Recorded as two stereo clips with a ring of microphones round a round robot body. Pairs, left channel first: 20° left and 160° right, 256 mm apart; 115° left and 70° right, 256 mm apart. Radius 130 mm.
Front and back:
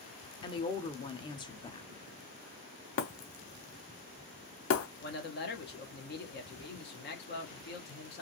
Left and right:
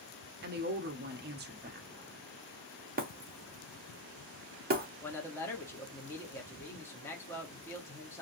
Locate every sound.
0.4 s a woman speaking: 40° right, 0.7 m
3.0 s breaking glass: 15° right, 0.8 m
5.0 s a man speaking: 35° left, 1.1 m